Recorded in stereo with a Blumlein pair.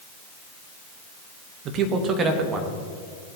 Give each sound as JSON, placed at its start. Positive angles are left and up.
{"t": 1.6, "sound": "a man speaking", "azimuth_deg": -35, "distance_m": 1.5}